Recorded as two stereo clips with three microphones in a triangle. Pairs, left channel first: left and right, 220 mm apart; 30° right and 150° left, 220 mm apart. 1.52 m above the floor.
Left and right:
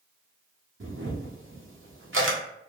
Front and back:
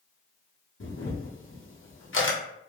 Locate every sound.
0.8 s a camera shutter: 60° right, 0.6 m